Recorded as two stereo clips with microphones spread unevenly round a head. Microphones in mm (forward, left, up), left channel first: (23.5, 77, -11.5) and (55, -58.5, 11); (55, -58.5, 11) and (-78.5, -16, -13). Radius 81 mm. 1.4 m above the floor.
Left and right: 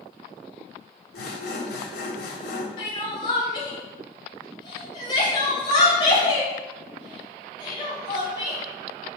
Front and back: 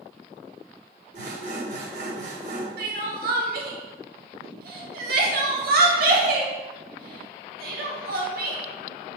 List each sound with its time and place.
1.1 s sawing: 115° left, 1.6 m
2.8 s crying: 165° left, 1.5 m